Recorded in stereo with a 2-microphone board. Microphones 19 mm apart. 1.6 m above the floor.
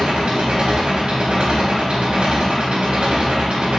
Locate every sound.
0.0 s an engine running: 60° right (ahead or behind), 0.8 m